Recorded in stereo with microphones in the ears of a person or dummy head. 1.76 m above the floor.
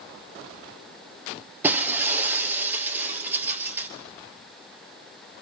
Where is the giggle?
I don't hear a giggle.